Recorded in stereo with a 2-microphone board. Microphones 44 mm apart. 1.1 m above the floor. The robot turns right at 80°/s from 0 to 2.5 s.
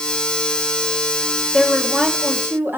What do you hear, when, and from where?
1.5 s a woman speaking: 165° left, 1.5 m; by 2.8 s 120° right, 1.5 m